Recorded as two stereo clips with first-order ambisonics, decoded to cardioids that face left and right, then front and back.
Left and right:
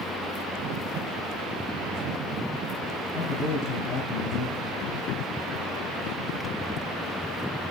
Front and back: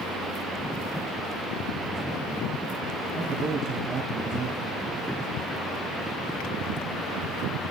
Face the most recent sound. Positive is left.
turn(degrees=110)